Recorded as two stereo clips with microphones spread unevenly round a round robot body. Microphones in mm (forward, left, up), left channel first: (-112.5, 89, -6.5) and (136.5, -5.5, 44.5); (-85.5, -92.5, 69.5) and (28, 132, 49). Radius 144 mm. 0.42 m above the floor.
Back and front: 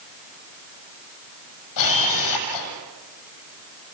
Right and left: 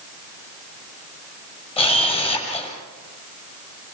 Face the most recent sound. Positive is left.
turn(degrees=175)